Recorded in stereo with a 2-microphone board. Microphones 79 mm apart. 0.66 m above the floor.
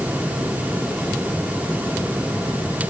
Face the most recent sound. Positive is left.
No sound to turn to.